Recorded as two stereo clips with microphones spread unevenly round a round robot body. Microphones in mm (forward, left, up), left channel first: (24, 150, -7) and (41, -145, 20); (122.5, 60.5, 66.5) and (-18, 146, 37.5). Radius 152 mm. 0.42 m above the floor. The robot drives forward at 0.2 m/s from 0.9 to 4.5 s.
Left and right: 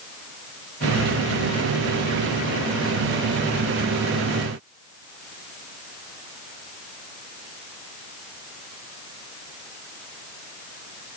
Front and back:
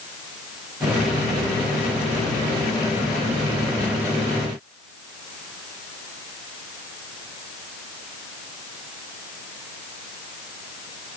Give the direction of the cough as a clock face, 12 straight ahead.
I don't hear a cough.